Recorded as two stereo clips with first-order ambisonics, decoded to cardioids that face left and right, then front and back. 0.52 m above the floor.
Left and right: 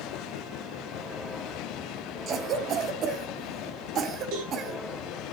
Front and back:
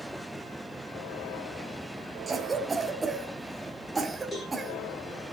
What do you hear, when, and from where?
2.3 s a cough: 110° right, 0.9 m
4.3 s a cowbell: 85° right, 7.5 m